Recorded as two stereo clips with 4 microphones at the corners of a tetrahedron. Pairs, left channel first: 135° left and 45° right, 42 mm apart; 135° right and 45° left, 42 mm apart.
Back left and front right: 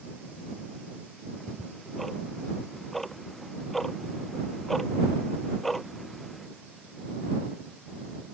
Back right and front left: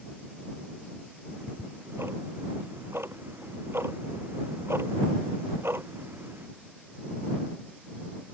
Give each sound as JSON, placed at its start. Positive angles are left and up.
{"t": 1.3, "sound": "ticking", "azimuth_deg": 50}